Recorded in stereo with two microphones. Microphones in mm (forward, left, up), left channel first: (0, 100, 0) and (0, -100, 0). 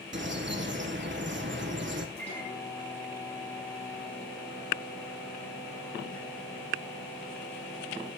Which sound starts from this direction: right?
A bird, at 0.1 s.